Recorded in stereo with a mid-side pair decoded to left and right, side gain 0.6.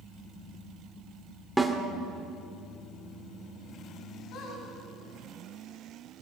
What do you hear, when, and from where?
1.6 s a snare drum: 5° right, 2.5 m
4.3 s a squeak: 60° left, 5.5 m